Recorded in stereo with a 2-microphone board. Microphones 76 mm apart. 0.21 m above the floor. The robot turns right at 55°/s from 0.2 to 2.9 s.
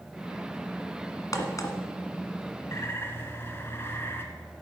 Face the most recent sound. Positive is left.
turn(degrees=30)  # may be behind; listen again after turning